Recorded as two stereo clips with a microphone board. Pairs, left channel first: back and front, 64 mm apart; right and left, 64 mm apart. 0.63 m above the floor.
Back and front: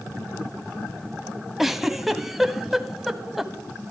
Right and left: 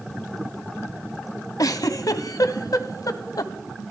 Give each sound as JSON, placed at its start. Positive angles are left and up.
{"t": 1.6, "sound": "a giggle", "azimuth_deg": -85, "distance_m": 0.8}